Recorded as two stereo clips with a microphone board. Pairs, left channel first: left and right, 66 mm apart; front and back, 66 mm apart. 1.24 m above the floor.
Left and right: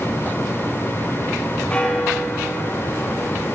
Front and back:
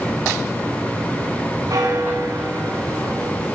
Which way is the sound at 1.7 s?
160° left.